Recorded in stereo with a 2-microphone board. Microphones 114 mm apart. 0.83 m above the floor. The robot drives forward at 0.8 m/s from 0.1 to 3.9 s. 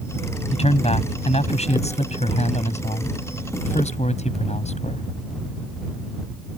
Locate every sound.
0.5 s a man speaking: 65° left (ahead or behind); by 5.1 s 80° left